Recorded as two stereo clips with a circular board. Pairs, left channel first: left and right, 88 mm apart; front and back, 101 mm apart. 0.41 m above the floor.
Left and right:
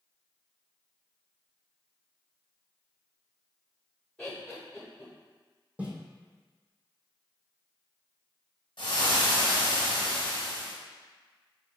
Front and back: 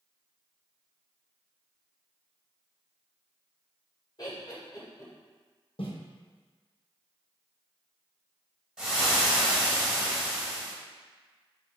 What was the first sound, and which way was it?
Laughter, 10° left.